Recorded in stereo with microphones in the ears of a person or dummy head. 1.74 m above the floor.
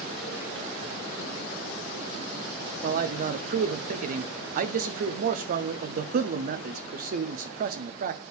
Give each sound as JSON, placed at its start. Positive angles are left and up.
{"t": 2.8, "sound": "a man speaking", "side_deg": -45, "distance_m": 0.7}